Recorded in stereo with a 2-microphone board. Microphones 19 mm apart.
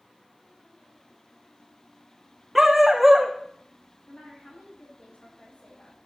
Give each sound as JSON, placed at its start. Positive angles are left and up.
{"t": 2.5, "sound": "a dog barking", "side_deg": -10, "distance_m": 2.5}
{"t": 4.1, "sound": "a woman speaking", "side_deg": 80, "distance_m": 8.0}